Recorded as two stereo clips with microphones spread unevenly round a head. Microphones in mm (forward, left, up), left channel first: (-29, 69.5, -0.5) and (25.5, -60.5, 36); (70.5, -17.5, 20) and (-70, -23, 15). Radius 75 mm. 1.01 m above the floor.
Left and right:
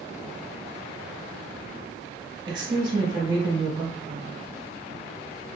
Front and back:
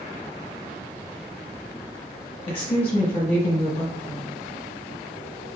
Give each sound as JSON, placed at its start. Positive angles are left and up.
{"t": 2.5, "sound": "a woman speaking", "azimuth_deg": -10, "distance_m": 0.8}